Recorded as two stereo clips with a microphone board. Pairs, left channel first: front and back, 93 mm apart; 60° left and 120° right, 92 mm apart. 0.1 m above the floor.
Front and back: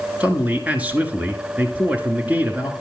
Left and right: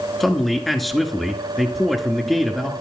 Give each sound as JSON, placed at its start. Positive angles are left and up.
{"t": 0.2, "sound": "a man speaking", "azimuth_deg": 145, "distance_m": 1.1}